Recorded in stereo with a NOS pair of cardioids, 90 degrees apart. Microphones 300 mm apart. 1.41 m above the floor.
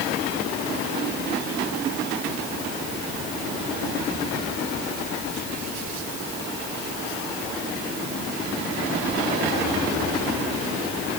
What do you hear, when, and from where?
Only background noise.